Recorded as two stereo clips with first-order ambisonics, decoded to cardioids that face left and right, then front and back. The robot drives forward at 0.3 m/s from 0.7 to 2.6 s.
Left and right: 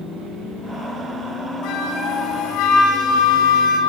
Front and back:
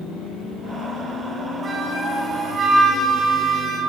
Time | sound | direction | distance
1.6 | a flute | 110° left | 5.5 m